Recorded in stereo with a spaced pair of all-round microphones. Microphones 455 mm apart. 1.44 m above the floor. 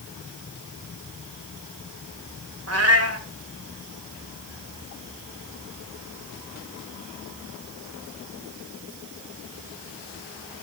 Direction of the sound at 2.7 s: 35° right (ahead or behind).